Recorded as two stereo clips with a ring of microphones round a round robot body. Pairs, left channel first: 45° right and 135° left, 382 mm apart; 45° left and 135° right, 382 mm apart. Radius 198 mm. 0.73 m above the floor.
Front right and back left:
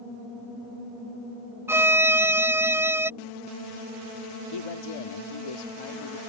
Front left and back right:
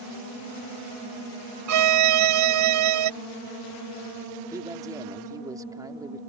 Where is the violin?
145° right.